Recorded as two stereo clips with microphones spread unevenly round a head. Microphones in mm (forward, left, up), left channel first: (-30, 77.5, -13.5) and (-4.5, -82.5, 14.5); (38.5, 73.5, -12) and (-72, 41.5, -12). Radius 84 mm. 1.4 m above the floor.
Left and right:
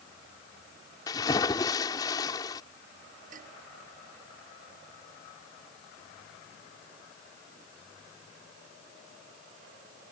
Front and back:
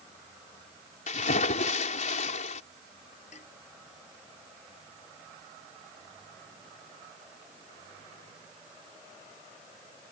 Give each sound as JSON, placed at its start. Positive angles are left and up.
{"t": 1.1, "sound": "a splash", "azimuth_deg": 30}
{"t": 3.3, "sound": "dishes clattering", "azimuth_deg": -35}